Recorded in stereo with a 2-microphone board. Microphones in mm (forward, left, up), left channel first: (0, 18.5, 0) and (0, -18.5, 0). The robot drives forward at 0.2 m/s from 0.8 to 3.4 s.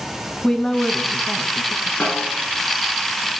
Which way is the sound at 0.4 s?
20° left (ahead or behind).